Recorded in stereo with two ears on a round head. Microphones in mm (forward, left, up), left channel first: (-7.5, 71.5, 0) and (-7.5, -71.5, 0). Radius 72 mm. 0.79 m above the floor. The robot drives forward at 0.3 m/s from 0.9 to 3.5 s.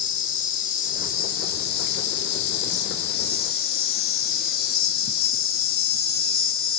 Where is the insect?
55° left (ahead or behind), 0.9 m; by 6.8 s 65° left (ahead or behind), 0.8 m.